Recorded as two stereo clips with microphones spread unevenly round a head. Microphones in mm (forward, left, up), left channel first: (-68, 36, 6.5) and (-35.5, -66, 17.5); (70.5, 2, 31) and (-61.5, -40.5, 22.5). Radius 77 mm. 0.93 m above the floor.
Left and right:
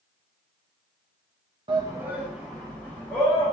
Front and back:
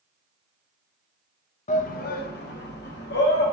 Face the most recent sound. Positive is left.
turn(degrees=35)